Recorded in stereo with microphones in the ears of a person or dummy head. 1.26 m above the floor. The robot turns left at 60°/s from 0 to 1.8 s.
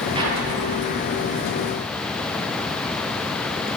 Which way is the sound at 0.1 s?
25° right (ahead or behind).